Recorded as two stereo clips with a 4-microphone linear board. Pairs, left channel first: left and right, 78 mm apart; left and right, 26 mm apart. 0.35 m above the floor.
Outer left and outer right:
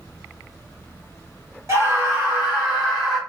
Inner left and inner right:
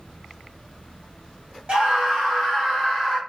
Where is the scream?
35° right (ahead or behind), 1.4 m; by 3.2 s centre (ahead or behind), 2 m.